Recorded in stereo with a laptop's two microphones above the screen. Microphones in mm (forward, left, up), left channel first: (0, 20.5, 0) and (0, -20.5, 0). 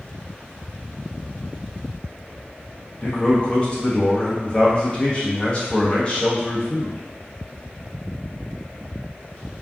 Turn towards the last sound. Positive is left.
turn(degrees=25)  # may be behind; listen again after turning